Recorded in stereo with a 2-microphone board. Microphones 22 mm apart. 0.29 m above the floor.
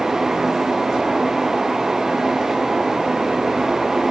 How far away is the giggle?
No giggle in this recording.